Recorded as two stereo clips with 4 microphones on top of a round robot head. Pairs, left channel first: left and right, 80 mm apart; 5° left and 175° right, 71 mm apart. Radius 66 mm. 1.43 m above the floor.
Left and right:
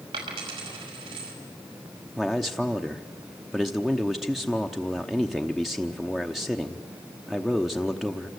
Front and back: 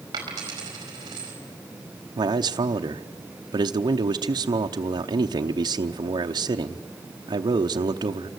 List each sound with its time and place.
0.1 s a dropped coin: 125° right, 4.5 m
2.2 s a man speaking: straight behind, 0.8 m